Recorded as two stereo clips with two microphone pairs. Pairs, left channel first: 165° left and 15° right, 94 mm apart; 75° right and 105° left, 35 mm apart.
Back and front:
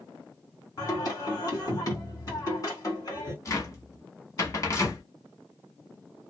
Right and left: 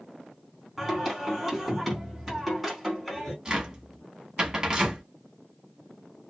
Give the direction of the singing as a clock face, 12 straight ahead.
6 o'clock.